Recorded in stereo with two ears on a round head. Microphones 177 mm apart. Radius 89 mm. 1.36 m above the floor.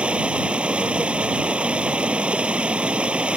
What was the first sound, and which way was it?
Running water, 5° right (ahead or behind).